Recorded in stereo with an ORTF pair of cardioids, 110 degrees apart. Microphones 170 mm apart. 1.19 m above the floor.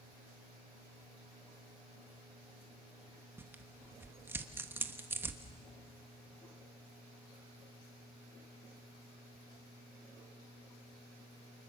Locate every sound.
3.4 s tearing paper: 15° right, 1.3 m